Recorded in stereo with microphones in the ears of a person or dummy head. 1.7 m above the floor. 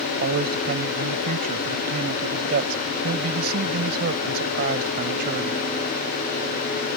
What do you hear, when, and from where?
0.2 s a man speaking: 55° right (ahead or behind)